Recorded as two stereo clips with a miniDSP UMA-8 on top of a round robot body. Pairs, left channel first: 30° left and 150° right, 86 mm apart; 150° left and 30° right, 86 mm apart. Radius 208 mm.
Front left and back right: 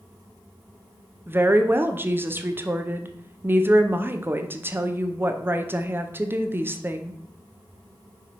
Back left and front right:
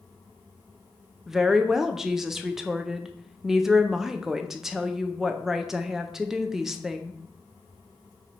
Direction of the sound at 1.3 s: 110° right.